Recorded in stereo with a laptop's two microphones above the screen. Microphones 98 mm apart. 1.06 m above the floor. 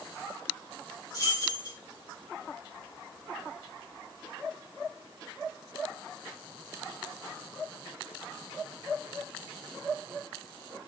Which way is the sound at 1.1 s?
40° left (ahead or behind).